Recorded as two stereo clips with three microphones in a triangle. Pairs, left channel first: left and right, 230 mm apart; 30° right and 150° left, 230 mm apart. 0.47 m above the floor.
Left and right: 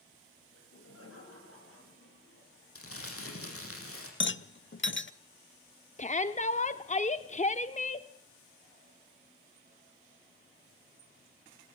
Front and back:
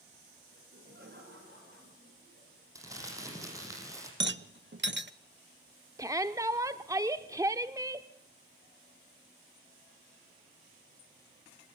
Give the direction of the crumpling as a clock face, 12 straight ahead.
10 o'clock.